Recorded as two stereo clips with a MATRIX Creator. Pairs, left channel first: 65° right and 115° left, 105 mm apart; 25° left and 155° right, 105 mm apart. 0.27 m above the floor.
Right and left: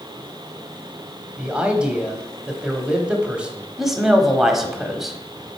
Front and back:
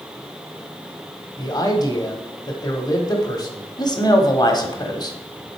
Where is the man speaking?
40° left, 1.1 m.